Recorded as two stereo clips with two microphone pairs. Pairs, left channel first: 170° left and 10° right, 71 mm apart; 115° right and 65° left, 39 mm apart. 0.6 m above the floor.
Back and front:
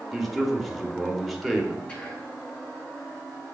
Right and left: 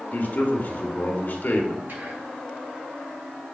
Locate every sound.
0.1 s a man speaking: 100° right, 1.2 m
1.9 s whispering: 100° left, 1.9 m